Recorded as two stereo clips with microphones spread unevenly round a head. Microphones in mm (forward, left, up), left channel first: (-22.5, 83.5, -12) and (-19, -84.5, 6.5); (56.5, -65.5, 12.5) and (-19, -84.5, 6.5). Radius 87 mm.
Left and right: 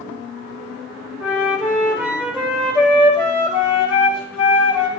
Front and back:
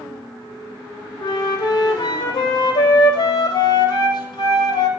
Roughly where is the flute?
Ahead.